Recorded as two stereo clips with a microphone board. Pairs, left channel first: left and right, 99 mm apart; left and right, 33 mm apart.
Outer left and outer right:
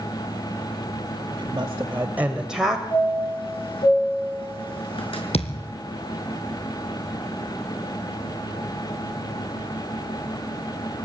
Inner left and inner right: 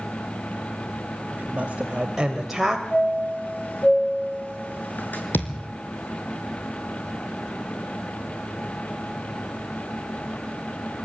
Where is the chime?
65° left (ahead or behind), 6 m.